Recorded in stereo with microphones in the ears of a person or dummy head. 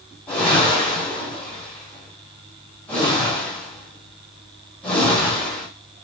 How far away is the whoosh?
About 1.5 m.